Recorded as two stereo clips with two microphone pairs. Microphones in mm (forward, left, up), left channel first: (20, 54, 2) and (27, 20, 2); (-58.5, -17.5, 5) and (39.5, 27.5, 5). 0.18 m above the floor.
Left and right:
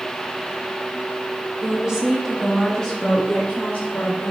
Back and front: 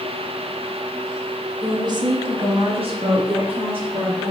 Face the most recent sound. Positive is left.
turn(degrees=65)